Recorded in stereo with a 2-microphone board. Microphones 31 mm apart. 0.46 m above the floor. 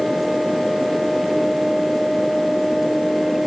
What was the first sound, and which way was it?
Only background noise.